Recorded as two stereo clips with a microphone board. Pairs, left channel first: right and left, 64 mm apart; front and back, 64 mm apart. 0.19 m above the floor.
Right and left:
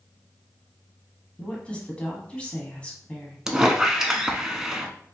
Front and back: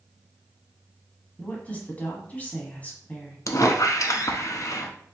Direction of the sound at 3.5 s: 10° left.